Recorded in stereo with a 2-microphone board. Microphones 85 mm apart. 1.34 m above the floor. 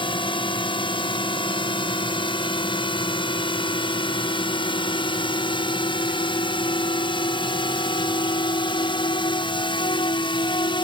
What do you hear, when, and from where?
0.0 s a drone: 80° left; by 10.8 s 75° left (ahead or behind)